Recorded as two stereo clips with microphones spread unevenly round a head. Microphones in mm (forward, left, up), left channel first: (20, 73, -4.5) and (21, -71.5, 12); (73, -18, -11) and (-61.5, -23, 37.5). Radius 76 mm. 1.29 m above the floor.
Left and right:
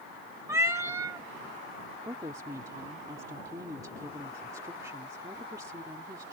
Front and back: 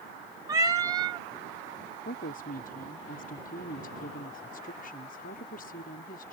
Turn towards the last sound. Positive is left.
turn(degrees=-20)